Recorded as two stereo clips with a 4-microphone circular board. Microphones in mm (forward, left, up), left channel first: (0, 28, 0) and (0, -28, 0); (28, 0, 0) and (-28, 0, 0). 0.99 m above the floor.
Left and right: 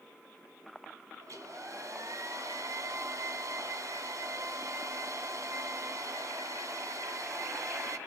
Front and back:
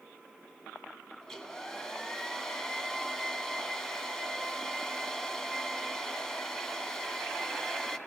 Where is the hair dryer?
75° right, 1.7 m.